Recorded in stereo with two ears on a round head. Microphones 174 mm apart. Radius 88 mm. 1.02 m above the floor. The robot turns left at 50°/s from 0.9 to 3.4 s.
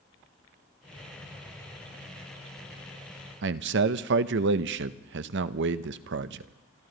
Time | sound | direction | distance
3.4 | a man speaking | 65° right (ahead or behind) | 0.7 m